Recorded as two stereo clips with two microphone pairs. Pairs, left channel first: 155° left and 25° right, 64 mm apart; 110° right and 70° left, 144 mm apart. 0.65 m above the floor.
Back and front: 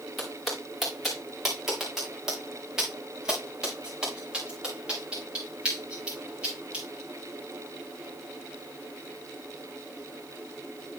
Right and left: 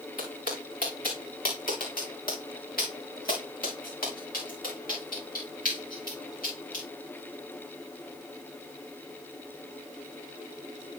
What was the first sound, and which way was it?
Footsteps, 120° right.